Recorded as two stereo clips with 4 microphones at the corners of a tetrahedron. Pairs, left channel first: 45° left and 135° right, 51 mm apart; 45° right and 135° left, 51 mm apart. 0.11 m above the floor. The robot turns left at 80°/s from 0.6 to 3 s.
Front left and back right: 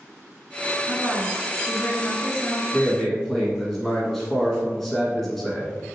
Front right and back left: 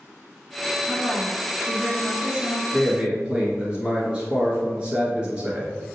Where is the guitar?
I don't hear a guitar.